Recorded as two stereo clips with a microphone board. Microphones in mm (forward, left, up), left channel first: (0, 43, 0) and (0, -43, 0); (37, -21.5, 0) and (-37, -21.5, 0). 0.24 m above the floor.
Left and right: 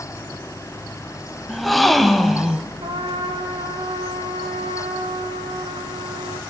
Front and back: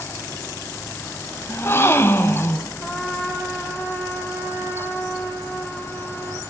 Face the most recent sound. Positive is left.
turn(degrees=-85)